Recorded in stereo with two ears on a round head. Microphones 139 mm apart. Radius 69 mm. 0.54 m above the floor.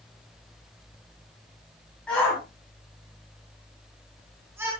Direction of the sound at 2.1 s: 5° left (ahead or behind).